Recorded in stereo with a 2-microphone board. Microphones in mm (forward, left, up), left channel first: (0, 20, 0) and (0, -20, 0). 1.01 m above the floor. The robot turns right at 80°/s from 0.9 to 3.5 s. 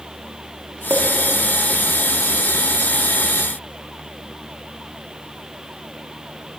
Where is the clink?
70° right (ahead or behind), 1.2 m; by 1.0 s 55° right (ahead or behind), 1.2 m.